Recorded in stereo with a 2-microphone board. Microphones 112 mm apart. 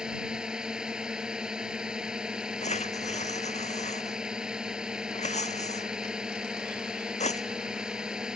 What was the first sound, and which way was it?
A drone, 5° right (ahead or behind).